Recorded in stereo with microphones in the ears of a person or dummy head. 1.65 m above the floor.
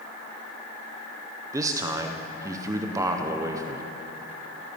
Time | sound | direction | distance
1.5 | a man speaking | 20° right (ahead or behind) | 0.7 m